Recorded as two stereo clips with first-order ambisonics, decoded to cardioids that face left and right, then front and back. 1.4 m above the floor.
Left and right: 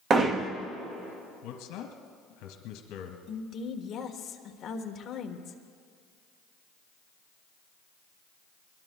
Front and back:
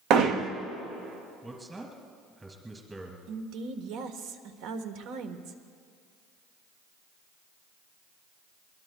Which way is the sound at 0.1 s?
150° right.